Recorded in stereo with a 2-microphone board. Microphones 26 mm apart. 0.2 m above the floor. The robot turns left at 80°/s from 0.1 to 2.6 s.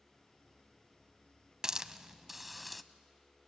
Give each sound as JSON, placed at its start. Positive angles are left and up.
{"t": 1.6, "sound": "a hiss", "side_deg": -25, "distance_m": 0.6}